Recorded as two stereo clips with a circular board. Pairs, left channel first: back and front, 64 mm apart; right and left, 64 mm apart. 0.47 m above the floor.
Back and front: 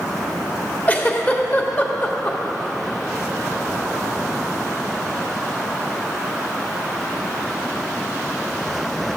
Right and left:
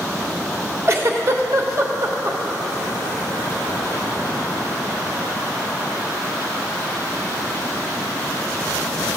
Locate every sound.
0.9 s a giggle: 120° left, 1.1 m